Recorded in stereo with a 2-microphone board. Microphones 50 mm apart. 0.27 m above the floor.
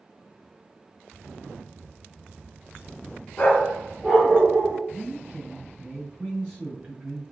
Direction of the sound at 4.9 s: 25° right (ahead or behind).